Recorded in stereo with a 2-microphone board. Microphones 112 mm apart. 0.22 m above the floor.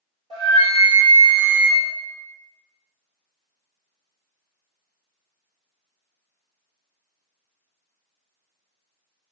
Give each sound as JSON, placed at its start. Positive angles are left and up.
{"t": 0.3, "sound": "a flute", "side_deg": -55, "distance_m": 1.3}